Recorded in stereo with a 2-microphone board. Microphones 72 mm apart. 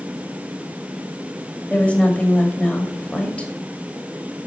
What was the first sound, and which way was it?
A woman speaking, 15° left (ahead or behind).